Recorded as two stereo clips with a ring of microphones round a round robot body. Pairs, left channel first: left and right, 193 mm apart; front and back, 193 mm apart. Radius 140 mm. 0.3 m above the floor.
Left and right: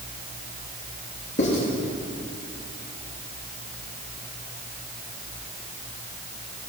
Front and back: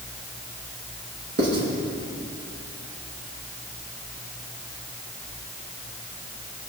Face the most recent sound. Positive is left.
turn(degrees=150)